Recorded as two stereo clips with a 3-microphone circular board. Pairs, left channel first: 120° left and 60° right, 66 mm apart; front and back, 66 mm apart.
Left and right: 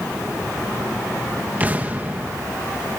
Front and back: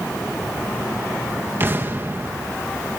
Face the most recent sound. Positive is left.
turn(degrees=-120)